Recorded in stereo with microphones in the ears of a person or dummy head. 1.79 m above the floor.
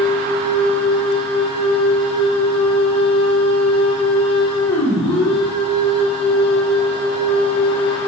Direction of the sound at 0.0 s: 25° left (ahead or behind).